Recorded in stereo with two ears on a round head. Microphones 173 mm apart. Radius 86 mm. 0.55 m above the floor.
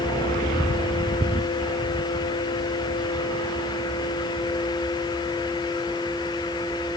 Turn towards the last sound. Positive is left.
No sound to turn to.